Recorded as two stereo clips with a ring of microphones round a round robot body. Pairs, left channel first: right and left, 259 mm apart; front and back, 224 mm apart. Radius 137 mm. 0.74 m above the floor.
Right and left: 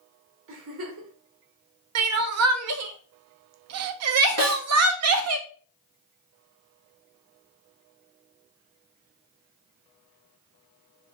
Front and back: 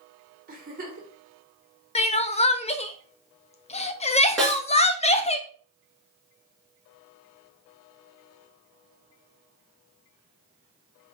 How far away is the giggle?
About 1.4 m.